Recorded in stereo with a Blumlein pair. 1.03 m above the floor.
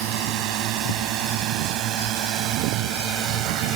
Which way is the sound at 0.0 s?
40° right.